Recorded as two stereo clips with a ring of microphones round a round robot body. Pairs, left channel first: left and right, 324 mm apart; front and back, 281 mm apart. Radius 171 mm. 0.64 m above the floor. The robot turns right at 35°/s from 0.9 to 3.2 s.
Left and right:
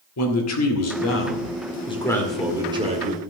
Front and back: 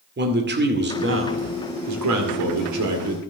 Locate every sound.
0.2 s a man speaking: 130° left, 2 m; by 3.2 s 150° right, 2 m